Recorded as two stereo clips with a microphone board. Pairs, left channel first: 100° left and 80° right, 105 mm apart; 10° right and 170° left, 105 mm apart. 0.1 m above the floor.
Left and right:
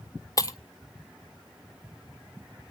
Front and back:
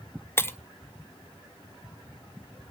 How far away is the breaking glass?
About 0.7 m.